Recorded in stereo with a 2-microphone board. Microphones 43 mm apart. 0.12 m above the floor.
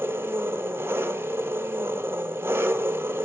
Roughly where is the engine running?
Right.